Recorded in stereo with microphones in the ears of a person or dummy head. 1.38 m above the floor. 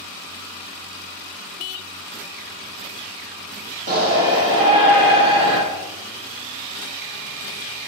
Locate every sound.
3.9 s a shout: 50° right (ahead or behind), 2.5 m